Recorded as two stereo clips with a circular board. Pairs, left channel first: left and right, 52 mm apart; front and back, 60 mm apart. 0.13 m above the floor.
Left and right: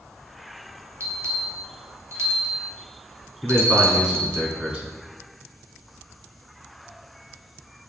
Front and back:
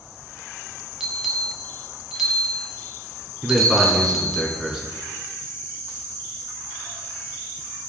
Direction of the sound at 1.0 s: 95° right.